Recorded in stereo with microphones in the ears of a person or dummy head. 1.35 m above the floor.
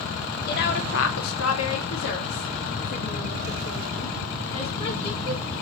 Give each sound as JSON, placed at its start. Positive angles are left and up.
{"t": 0.5, "sound": "a woman speaking", "side_deg": 50, "distance_m": 0.7}